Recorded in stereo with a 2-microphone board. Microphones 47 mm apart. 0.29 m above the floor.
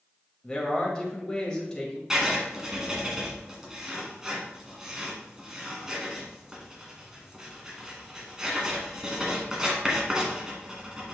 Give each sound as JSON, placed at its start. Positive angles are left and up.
{"t": 0.4, "sound": "a man speaking", "side_deg": 15, "distance_m": 1.4}
{"t": 2.1, "sound": "writing", "side_deg": -15, "distance_m": 1.8}